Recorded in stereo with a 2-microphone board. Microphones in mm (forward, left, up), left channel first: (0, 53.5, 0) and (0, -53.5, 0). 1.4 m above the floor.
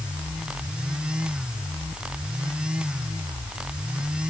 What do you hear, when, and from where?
Only background noise.